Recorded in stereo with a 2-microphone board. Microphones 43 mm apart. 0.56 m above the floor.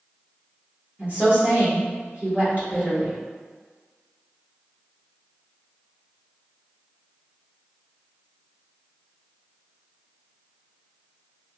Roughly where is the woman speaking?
Right.